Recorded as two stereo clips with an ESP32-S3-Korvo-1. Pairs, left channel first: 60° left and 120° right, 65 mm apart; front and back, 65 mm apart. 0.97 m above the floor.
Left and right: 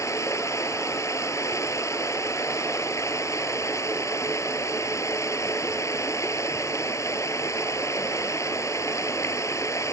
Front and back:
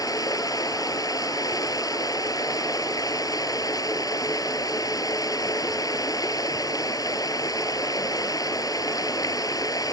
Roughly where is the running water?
Ahead.